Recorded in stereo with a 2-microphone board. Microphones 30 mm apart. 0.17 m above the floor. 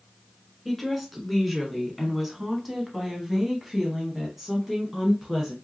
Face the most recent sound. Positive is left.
turn(degrees=-10)  # may be behind; listen again after turning